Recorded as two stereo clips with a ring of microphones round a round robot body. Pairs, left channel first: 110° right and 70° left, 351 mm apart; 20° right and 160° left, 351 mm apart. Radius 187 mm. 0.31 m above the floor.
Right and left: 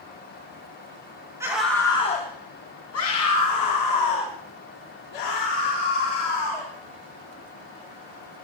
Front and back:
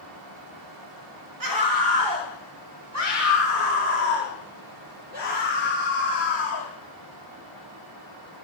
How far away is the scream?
About 2.5 m.